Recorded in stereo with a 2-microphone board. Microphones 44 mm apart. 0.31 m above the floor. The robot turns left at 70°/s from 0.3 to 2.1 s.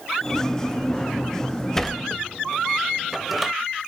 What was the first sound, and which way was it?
A sliding door, 10° left (ahead or behind).